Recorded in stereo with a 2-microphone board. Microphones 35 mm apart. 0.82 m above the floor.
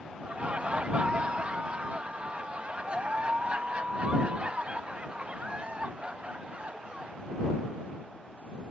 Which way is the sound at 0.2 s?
35° right (ahead or behind).